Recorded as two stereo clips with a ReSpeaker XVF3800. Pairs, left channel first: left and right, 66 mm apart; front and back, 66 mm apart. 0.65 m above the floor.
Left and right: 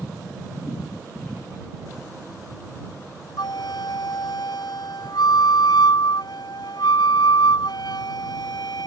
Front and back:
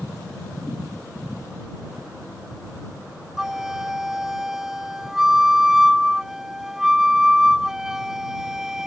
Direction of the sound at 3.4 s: 95° left.